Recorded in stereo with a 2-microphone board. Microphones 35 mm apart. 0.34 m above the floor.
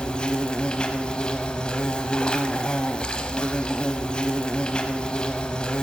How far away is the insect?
About 0.8 m.